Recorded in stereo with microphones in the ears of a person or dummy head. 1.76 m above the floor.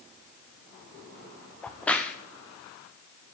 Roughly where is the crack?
Centre.